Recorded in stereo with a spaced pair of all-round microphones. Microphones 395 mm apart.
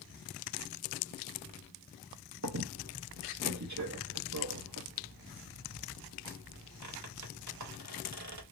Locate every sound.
2.4 s a squeak: 45° right (ahead or behind), 0.8 m